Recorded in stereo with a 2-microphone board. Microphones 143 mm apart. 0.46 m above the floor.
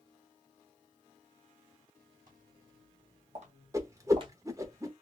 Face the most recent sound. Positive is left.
turn(degrees=-20)  # may be behind; listen again after turning